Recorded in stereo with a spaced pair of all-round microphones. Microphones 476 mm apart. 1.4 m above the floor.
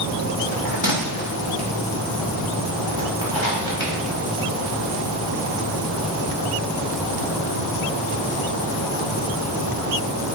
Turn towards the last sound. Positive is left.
turn(degrees=70)  # may be behind; listen again after turning